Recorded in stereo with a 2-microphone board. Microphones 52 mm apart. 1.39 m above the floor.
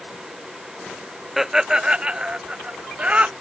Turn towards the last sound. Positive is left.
turn(degrees=-25)  # may be behind; listen again after turning